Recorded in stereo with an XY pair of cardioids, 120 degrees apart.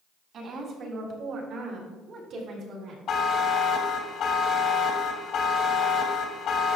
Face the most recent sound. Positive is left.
turn(degrees=55)